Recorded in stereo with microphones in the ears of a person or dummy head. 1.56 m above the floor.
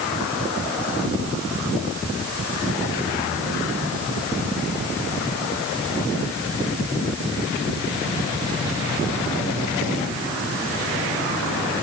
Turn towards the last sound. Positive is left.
No sound to turn to.